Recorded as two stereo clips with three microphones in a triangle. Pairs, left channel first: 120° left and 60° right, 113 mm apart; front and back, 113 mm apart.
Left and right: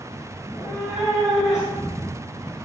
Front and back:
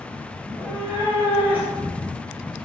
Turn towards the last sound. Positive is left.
turn(degrees=65)